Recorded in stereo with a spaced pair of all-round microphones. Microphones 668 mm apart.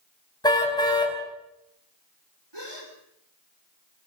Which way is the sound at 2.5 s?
40° right (ahead or behind).